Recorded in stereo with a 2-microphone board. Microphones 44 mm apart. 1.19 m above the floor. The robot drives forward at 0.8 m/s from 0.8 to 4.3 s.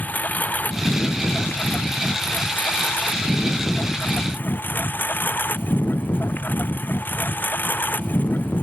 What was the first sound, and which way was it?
A lawn mower, 40° left (ahead or behind).